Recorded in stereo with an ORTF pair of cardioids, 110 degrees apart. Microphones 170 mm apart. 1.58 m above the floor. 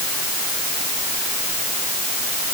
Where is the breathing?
No breathing in this recording.